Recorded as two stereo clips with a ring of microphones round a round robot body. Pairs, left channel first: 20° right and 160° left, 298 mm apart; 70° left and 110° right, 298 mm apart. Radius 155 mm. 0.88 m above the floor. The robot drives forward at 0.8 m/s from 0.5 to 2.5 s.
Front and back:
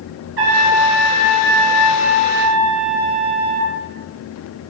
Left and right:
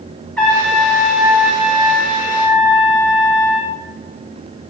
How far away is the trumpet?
About 2.5 m.